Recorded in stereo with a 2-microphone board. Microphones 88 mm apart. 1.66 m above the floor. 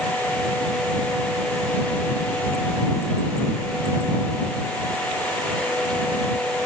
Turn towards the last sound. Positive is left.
No sound to turn to.